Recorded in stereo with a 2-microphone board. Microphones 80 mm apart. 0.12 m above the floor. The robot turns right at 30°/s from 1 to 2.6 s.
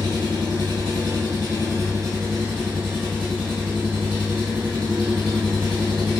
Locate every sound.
0.0 s an engine running: 70° right, 1.8 m; by 6.2 s 25° right, 1.8 m